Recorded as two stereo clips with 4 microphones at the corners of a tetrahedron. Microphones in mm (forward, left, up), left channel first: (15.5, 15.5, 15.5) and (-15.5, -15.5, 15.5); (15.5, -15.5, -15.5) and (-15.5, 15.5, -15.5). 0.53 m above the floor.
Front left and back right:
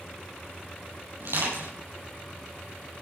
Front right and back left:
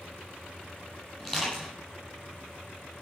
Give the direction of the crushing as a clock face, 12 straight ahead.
4 o'clock.